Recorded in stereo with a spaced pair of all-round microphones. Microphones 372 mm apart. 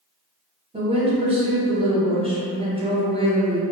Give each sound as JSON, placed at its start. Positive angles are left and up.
{"t": 0.7, "sound": "a woman speaking", "side_deg": -15, "distance_m": 0.8}